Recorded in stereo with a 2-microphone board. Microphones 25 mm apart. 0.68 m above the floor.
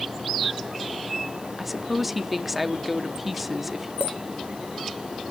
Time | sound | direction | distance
1.6 | a woman speaking | 10° right (ahead or behind) | 0.9 m
4.0 | a clink | 65° right (ahead or behind) | 1.3 m